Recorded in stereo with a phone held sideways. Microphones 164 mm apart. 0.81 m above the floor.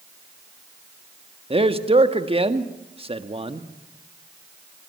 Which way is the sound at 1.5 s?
35° right (ahead or behind).